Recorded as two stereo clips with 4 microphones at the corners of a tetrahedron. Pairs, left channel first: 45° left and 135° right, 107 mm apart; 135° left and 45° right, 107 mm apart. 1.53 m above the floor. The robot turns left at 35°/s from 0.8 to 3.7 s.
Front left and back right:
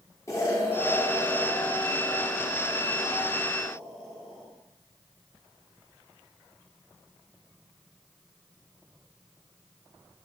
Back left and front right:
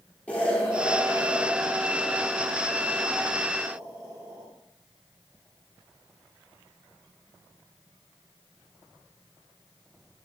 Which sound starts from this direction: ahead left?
An explosion, at 0.3 s.